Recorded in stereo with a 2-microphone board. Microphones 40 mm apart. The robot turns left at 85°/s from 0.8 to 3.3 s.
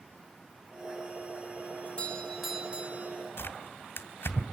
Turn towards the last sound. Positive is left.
turn(degrees=75)  # may be behind; listen again after turning